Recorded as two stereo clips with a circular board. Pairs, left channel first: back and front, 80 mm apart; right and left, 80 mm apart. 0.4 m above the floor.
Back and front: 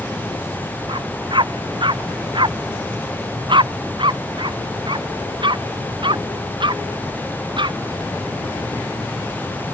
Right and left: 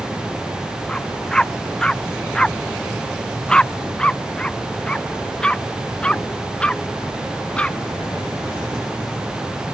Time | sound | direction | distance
0.9 | a dog barking | 10° right | ?